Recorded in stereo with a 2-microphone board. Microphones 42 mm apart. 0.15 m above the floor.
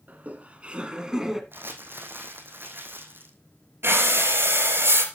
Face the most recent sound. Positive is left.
turn(degrees=-60)  # may be behind; listen again after turning